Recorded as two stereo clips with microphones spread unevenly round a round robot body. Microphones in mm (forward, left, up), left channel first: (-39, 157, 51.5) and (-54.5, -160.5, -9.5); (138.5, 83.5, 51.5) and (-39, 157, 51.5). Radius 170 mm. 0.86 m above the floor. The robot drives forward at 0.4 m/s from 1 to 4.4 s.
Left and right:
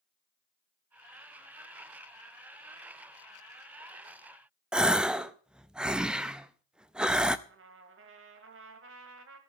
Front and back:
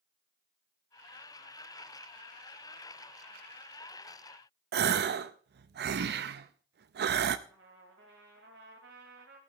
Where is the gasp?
175° right, 0.5 m.